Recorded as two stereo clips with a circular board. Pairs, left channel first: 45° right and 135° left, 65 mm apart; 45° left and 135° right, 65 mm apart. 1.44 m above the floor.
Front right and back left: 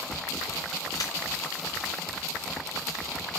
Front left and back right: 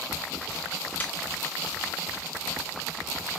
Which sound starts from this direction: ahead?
A snare drum, at 1.0 s.